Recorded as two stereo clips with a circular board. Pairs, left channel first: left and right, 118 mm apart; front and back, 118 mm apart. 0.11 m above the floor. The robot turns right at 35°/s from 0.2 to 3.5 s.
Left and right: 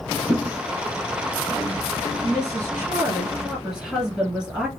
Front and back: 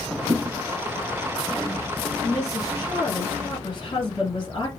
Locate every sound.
0.3 s a thud: 145° left, 2 m; by 0.6 s 150° left, 2 m
2.2 s a woman speaking: 55° right, 1.6 m; by 4.7 s 10° right, 1.6 m